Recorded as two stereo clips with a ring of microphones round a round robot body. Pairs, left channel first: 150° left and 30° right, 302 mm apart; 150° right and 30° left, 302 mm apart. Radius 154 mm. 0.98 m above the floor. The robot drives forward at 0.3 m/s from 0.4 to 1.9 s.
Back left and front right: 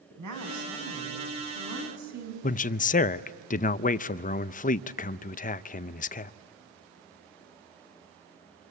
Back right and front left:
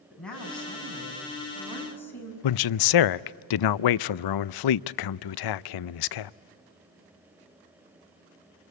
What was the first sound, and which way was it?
A woman speaking, 65° right.